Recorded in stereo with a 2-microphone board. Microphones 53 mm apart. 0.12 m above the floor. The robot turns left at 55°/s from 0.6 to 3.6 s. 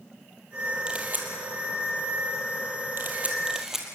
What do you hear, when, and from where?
0.9 s a camera shutter: 20° right (ahead or behind), 3 m; by 3.9 s 10° right (ahead or behind), 3 m